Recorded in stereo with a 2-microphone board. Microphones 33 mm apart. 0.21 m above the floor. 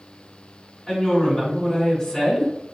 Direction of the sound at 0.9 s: 5° right (ahead or behind).